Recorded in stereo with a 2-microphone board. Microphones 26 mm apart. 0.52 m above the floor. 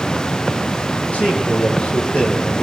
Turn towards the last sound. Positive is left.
turn(degrees=50)  # may be behind; listen again after turning